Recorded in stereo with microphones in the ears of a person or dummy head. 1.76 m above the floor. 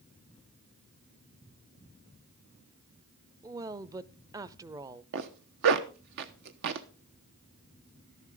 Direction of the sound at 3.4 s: 20° right (ahead or behind).